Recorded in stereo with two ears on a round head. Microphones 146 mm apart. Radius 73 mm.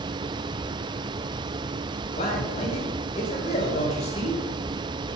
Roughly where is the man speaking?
Left.